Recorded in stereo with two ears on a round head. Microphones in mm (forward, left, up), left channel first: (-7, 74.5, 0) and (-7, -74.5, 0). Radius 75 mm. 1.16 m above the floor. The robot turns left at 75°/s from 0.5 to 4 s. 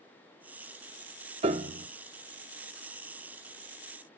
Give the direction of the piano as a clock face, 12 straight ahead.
2 o'clock.